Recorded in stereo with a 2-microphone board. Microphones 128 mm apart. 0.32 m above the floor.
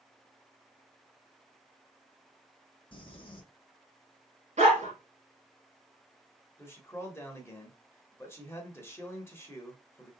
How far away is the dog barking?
About 1.4 m.